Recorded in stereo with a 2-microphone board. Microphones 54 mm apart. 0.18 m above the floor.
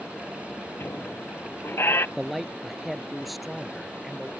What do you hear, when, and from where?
0.8 s a squeak: 50° left (ahead or behind)
2.2 s a man speaking: centre (ahead or behind)